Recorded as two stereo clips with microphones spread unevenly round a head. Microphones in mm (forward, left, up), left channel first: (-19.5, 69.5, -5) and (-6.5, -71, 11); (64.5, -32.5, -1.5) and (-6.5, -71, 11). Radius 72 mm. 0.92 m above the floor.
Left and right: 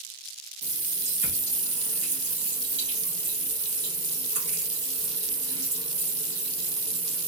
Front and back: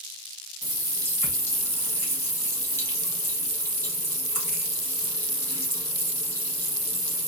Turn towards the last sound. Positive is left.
turn(degrees=-35)